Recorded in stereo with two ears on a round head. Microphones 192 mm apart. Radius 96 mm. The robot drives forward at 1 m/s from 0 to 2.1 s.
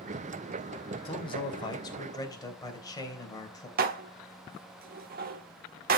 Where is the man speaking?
25° left (ahead or behind), 1.9 m; by 3.7 s 15° left (ahead or behind), 3 m.